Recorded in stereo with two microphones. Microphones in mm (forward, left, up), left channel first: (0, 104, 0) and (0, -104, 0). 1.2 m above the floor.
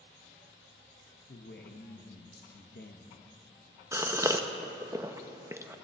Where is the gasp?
15° right (ahead or behind), 0.7 m.